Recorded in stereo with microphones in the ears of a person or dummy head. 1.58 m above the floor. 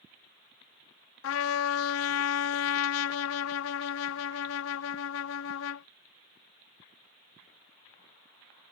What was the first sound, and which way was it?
A trumpet, 75° left (ahead or behind).